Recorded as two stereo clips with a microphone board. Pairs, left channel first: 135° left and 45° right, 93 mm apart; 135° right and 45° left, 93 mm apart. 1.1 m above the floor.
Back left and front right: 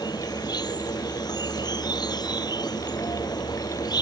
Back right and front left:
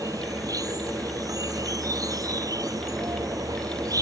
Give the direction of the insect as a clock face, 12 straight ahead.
9 o'clock.